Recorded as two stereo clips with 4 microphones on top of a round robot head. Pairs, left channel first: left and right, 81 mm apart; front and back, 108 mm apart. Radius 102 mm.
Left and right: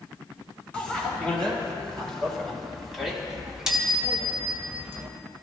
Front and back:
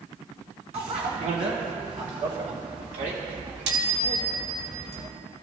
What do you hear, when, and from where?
0.7 s a bicycle bell: 165° left, 6 m; by 5.1 s 150° right, 2.5 m